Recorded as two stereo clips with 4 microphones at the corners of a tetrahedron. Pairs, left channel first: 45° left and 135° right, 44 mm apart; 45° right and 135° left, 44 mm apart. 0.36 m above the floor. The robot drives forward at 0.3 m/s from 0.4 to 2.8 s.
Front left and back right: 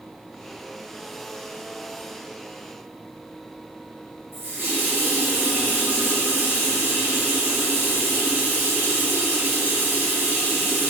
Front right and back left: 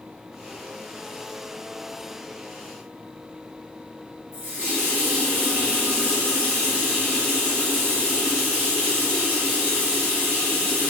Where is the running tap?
175° right, 1.7 m.